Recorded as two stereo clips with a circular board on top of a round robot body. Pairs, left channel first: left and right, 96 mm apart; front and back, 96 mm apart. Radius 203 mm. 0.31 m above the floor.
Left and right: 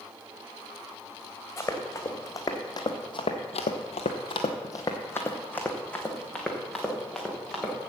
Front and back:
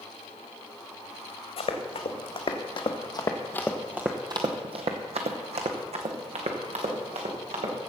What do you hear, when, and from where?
1.6 s running footsteps: 25° left, 1.9 m; by 7.8 s 175° left, 3 m